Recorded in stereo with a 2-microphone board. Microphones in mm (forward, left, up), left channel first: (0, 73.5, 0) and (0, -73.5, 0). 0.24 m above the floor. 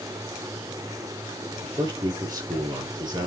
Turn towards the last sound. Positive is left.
turn(degrees=-30)  # may be behind; listen again after turning